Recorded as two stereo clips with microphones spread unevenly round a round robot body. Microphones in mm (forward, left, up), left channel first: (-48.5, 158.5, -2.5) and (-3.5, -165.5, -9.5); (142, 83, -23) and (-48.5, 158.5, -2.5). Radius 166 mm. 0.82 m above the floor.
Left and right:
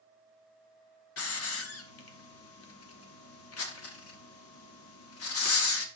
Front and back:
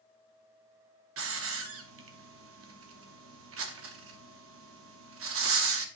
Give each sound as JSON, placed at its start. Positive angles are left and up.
{"t": 1.2, "sound": "a hiss", "azimuth_deg": 150, "distance_m": 1.0}